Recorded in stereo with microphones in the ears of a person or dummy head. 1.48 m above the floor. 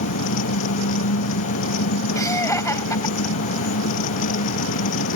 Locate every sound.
0.0 s an engine running: 85° left
2.1 s laughter: 15° left (ahead or behind)